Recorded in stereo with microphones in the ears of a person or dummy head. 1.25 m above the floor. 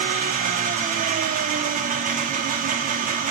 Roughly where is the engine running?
Right.